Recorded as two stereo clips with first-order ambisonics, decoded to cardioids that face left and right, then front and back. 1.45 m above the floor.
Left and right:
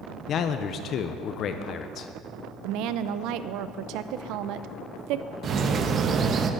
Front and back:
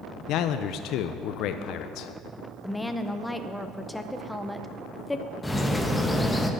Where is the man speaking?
35° left, 0.5 m.